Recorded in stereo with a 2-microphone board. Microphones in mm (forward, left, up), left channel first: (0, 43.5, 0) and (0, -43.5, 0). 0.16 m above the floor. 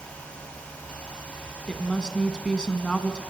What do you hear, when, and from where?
1.7 s a woman speaking: 10° left (ahead or behind), 1.0 m